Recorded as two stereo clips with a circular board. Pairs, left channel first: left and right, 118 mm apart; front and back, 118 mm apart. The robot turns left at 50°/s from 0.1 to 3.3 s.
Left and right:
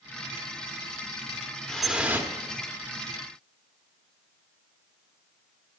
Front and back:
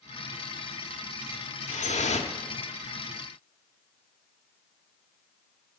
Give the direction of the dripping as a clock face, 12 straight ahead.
12 o'clock.